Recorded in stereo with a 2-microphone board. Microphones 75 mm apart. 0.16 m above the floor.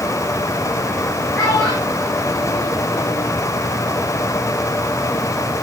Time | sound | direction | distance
1.3 | a child speaking | 35° left (ahead or behind) | 6.5 m